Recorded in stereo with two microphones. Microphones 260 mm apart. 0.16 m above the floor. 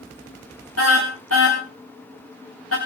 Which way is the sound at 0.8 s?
65° left (ahead or behind).